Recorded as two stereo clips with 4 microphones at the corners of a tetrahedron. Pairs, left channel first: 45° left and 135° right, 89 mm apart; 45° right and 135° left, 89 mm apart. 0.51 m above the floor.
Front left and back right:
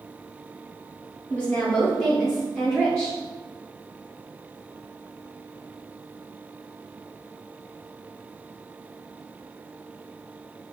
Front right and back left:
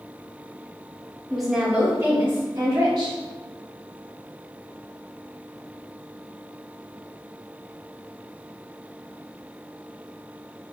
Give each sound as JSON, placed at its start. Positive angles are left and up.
{"t": 1.3, "sound": "a woman speaking", "azimuth_deg": 15, "distance_m": 0.8}